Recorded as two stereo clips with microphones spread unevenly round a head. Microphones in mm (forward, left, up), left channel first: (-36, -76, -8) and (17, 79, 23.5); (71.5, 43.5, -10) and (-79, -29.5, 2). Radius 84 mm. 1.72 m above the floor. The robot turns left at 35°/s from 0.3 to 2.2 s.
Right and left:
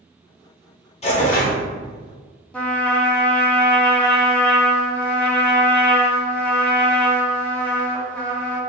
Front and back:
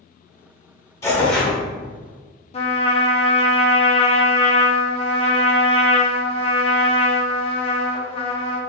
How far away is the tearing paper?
About 0.9 m.